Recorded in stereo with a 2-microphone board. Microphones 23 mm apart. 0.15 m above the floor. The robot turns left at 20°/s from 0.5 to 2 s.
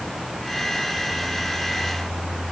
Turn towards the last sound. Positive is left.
No sound to turn to.